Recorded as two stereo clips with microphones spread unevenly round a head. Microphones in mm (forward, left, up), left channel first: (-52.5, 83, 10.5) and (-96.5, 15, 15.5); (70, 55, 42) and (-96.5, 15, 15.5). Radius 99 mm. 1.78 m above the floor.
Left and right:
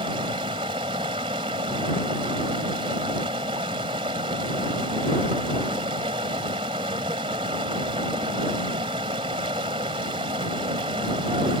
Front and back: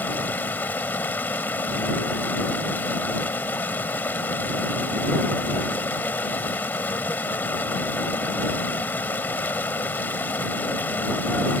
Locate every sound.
0.0 s running water: 65° right